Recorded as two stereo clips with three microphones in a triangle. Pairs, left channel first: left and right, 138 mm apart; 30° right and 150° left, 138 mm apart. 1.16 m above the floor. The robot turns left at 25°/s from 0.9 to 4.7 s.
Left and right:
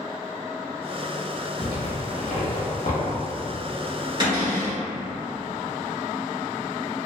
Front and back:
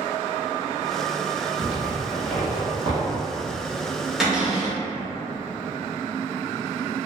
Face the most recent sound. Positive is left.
turn(degrees=-140)